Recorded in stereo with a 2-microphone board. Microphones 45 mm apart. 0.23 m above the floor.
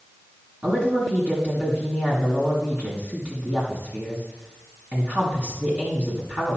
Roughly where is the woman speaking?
Right.